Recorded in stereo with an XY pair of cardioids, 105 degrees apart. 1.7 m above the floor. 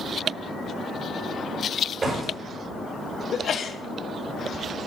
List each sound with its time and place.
2.0 s a door slam: 25° right, 6.5 m
3.3 s a sneeze: 50° left, 1.5 m